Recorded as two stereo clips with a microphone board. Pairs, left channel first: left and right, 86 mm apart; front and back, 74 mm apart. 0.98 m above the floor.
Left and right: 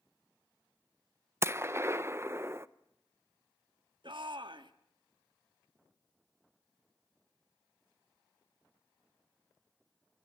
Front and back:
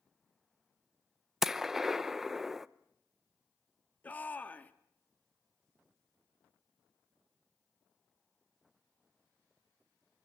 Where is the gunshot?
95° right, 0.5 m.